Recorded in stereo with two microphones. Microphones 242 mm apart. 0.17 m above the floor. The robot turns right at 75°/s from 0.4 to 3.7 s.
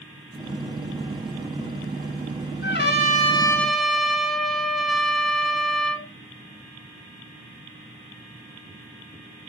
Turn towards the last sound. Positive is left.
turn(degrees=180)